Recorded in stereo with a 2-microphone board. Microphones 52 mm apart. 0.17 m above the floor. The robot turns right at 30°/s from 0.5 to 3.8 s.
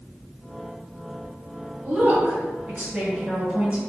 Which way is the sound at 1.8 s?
30° right (ahead or behind).